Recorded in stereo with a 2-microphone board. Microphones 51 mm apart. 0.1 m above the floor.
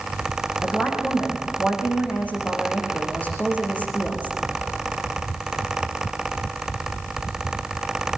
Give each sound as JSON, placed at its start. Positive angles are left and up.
{"t": 0.6, "sound": "a woman speaking", "side_deg": 30, "distance_m": 6.5}